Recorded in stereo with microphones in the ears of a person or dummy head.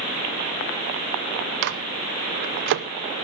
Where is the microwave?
55° right (ahead or behind), 0.7 m.